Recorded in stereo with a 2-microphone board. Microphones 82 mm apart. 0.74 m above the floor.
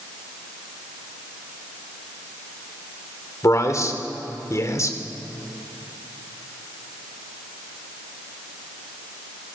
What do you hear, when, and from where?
3.4 s a man speaking: 45° left (ahead or behind), 2.5 m